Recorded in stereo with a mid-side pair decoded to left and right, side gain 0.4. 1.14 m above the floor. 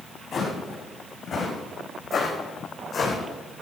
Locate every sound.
0.3 s footsteps: 45° left, 4.5 m; by 3.2 s 40° left, 3.5 m